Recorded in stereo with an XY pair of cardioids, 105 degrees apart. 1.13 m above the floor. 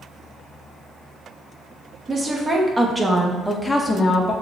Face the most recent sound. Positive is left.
turn(degrees=40)